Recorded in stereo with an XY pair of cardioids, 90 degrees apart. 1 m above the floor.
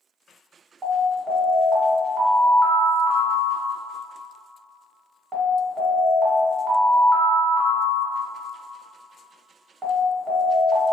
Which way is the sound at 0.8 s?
40° right.